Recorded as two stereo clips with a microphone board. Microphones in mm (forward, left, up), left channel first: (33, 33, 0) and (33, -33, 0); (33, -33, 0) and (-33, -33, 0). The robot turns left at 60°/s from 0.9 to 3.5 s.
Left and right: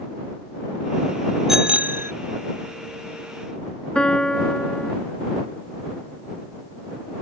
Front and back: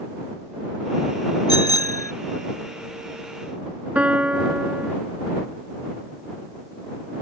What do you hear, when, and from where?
1.5 s a bicycle bell: 5° right; by 2.1 s 45° right
4.0 s a piano: 145° left